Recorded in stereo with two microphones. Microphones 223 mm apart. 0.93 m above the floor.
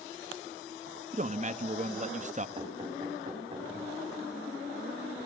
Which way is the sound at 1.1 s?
35° right (ahead or behind).